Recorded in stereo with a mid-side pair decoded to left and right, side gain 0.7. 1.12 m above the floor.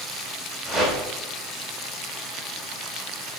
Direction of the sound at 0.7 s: 10° left.